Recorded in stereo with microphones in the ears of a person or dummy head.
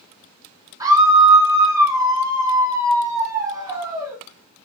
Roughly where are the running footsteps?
I don't hear running footsteps.